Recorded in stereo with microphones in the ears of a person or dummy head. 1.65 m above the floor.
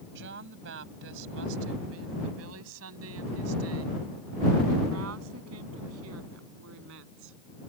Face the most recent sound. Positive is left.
turn(degrees=-70)  # may be behind; listen again after turning